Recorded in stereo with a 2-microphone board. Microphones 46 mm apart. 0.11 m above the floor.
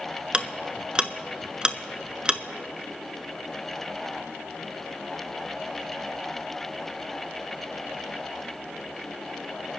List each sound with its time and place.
0.3 s ticking: 20° right (ahead or behind), 0.5 m